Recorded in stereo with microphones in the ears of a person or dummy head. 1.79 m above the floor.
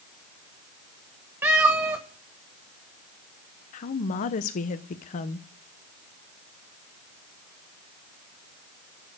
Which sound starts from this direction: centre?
A cat meowing, at 1.4 s.